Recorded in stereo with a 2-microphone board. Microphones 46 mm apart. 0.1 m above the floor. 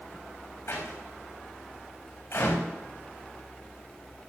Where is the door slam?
65° left (ahead or behind), 6 m.